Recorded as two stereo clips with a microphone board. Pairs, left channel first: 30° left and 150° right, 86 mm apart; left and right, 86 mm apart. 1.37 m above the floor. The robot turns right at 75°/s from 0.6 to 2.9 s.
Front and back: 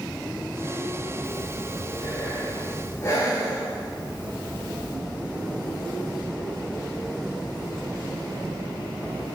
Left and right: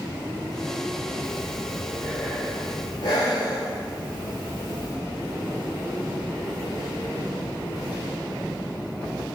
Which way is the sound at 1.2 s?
40° right.